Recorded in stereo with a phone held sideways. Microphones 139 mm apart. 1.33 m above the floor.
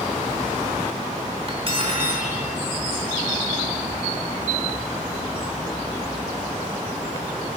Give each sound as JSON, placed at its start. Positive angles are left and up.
{"t": 1.5, "sound": "cutlery clinking", "side_deg": -45, "distance_m": 3.0}